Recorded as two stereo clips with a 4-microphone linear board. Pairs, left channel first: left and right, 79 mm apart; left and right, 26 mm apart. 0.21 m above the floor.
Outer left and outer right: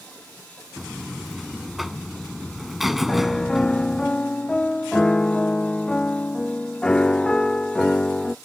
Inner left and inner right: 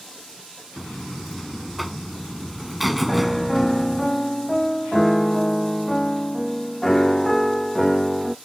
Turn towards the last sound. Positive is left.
turn(degrees=10)  # may be behind; listen again after turning